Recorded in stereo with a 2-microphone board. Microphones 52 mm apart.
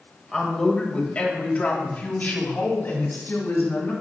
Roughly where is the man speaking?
Centre.